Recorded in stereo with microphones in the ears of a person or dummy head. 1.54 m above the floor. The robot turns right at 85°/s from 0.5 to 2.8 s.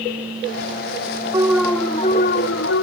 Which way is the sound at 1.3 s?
25° right.